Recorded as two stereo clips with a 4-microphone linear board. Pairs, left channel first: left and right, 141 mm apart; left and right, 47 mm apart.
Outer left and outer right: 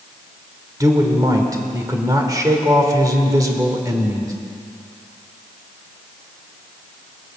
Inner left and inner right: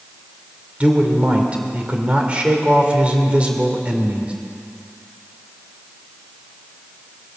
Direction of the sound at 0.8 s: 25° right (ahead or behind).